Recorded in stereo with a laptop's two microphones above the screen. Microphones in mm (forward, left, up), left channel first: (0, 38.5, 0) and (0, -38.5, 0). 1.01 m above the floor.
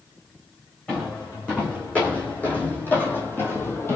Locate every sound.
0.9 s footsteps: 20° left (ahead or behind), 4.5 m; by 4.0 s 35° left (ahead or behind), 2 m